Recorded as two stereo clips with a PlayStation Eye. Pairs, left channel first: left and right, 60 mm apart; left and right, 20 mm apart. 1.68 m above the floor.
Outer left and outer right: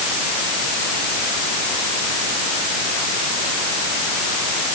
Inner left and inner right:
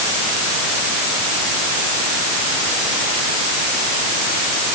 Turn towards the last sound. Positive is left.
No sound to turn to.